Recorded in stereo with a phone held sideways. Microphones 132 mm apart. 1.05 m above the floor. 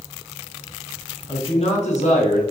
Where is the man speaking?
30° left (ahead or behind), 0.5 m; by 2.4 s 70° left (ahead or behind), 1.5 m.